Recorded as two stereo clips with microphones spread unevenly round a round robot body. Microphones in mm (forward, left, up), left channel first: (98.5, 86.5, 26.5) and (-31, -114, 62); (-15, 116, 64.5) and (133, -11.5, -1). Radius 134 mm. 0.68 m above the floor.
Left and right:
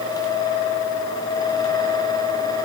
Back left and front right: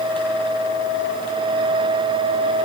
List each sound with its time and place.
Only background noise.